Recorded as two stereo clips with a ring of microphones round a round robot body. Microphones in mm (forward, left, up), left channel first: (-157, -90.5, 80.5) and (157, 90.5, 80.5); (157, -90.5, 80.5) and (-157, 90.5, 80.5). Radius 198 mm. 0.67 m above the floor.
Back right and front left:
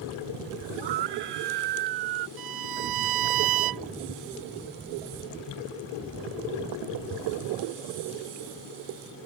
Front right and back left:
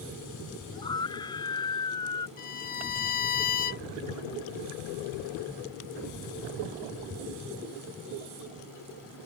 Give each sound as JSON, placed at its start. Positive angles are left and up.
{"t": 0.7, "sound": "a scream", "azimuth_deg": 50}
{"t": 2.4, "sound": "a violin", "azimuth_deg": 35}